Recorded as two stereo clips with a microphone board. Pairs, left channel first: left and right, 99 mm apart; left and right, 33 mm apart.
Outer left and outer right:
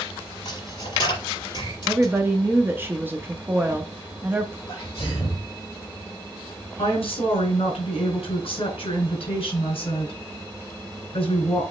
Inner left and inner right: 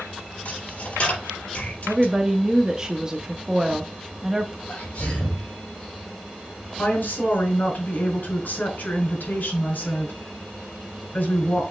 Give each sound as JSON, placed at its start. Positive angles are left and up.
{"t": 0.5, "sound": "a dropped coin", "side_deg": 50, "distance_m": 4.5}
{"t": 1.9, "sound": "a woman speaking", "side_deg": -20, "distance_m": 0.9}
{"t": 4.7, "sound": "a sneeze", "side_deg": 35, "distance_m": 3.0}
{"t": 6.8, "sound": "a woman speaking", "side_deg": 70, "distance_m": 4.0}